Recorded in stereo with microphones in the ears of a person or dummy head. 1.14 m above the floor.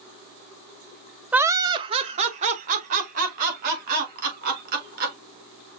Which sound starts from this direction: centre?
Laughter, at 1.3 s.